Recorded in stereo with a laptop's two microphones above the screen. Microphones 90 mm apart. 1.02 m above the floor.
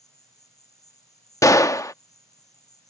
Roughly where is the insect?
Left.